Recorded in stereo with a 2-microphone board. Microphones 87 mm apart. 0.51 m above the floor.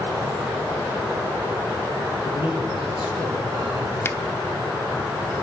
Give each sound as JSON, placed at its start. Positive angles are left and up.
{"t": 2.2, "sound": "a man speaking", "side_deg": 85, "distance_m": 9.0}
{"t": 4.0, "sound": "a finger snap", "side_deg": 25, "distance_m": 0.8}